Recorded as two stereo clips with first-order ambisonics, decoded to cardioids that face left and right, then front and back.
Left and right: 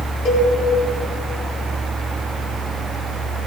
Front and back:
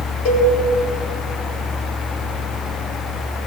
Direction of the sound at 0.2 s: 35° left.